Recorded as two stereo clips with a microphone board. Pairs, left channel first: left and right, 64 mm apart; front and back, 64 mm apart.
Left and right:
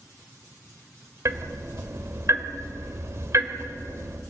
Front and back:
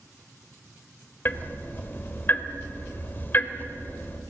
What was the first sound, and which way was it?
Ticking, 55° right.